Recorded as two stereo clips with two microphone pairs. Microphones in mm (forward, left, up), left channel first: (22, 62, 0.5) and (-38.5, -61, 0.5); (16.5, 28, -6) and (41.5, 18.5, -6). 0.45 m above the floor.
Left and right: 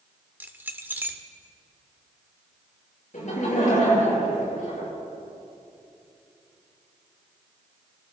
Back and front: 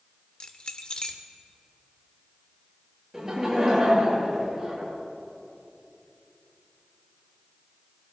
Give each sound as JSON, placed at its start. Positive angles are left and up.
{"t": 0.4, "sound": "keys jangling", "azimuth_deg": 180, "distance_m": 0.9}
{"t": 3.1, "sound": "laughter", "azimuth_deg": 50, "distance_m": 7.0}